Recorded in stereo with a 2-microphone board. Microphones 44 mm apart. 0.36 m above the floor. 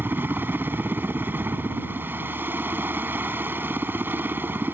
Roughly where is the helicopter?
Right.